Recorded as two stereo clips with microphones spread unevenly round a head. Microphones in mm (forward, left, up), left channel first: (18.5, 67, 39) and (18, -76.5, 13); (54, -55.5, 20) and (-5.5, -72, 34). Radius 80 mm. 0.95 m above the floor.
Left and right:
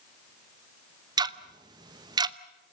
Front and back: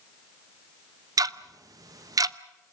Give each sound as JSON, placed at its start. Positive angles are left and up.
{"t": 1.2, "sound": "ticking", "azimuth_deg": -145, "distance_m": 0.7}